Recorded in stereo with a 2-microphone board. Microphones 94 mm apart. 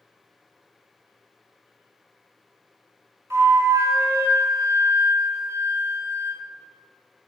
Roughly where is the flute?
Right.